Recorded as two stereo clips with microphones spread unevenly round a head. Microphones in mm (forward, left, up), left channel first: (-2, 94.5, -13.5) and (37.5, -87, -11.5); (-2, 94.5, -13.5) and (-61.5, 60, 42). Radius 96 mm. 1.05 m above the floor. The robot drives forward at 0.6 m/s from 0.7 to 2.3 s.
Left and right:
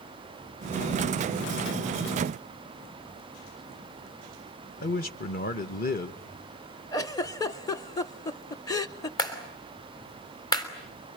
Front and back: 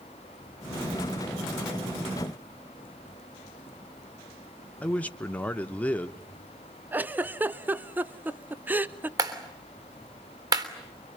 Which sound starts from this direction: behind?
A clap, at 9.2 s.